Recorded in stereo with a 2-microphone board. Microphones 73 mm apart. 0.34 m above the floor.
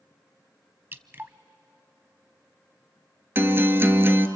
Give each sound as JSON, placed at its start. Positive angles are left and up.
{"t": 0.9, "sound": "dripping", "side_deg": -30, "distance_m": 0.7}
{"t": 3.4, "sound": "a guitar", "side_deg": -35, "distance_m": 1.1}